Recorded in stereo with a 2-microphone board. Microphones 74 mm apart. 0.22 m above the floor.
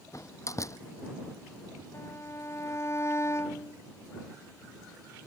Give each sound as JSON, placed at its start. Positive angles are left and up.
{"t": 0.1, "sound": "a door slam", "side_deg": 45}
{"t": 1.9, "sound": "a violin", "side_deg": 40}